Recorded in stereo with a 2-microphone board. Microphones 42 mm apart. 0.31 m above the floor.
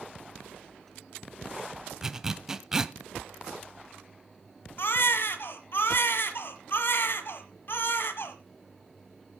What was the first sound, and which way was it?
A zipper, 15° right (ahead or behind).